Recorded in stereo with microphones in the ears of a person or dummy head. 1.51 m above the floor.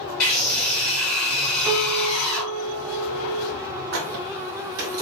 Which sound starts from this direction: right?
A squeak, at 3.9 s.